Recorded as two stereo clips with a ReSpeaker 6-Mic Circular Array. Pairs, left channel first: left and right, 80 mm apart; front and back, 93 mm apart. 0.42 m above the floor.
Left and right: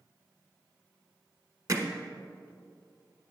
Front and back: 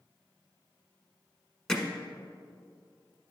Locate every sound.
1.7 s hammering: 80° right, 1.1 m